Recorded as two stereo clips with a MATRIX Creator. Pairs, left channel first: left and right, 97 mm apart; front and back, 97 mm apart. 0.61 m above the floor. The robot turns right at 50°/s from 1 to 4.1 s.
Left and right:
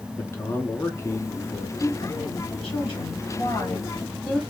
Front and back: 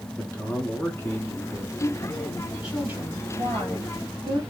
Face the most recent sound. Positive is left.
turn(degrees=175)